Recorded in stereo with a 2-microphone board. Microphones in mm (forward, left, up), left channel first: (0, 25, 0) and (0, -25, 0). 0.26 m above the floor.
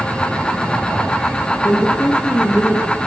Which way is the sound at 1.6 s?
45° left (ahead or behind).